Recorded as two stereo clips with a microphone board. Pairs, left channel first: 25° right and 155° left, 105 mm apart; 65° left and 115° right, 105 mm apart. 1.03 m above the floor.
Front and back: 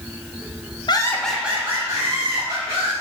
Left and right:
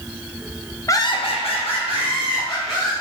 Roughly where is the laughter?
Ahead.